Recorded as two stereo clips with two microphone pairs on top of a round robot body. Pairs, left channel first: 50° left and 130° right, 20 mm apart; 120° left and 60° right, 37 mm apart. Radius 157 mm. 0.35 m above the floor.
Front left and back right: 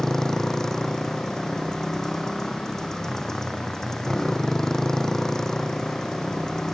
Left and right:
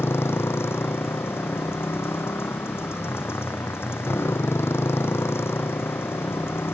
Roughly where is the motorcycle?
Behind left.